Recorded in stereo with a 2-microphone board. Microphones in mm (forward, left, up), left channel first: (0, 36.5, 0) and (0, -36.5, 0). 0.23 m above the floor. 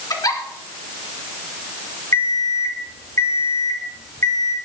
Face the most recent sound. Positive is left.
turn(degrees=45)  # may be behind; listen again after turning